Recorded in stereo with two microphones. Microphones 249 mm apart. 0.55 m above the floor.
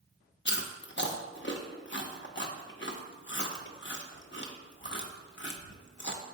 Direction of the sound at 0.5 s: 45° left (ahead or behind).